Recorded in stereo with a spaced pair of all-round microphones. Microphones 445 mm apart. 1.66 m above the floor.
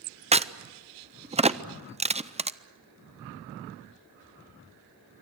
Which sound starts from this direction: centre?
A crack, at 0.3 s.